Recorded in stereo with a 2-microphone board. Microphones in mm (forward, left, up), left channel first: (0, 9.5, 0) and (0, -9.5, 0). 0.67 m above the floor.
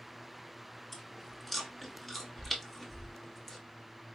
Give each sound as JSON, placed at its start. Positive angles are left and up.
{"t": 0.9, "sound": "chewing", "side_deg": 15, "distance_m": 1.1}